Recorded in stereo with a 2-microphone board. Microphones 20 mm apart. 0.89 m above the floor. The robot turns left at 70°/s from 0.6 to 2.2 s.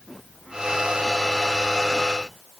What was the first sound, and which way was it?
Only background noise.